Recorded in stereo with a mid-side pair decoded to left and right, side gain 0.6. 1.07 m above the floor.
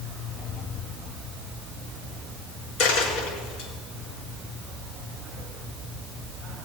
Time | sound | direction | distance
2.8 | a dropped coin | 55° left | 5.5 m